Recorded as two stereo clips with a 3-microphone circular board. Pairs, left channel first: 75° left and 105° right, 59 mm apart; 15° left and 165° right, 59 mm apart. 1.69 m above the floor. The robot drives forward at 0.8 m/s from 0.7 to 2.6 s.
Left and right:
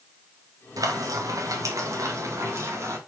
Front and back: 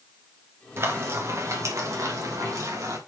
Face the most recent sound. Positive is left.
turn(degrees=-145)